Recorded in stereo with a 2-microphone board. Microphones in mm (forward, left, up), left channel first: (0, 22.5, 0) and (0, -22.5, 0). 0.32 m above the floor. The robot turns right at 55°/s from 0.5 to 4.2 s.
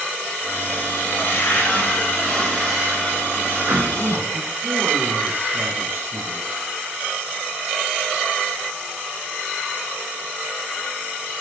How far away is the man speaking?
About 3.5 m.